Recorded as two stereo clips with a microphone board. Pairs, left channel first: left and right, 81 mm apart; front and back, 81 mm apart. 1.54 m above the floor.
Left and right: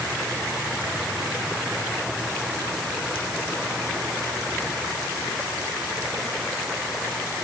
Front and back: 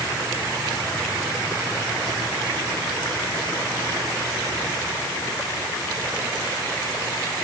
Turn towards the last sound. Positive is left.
No sound to turn to.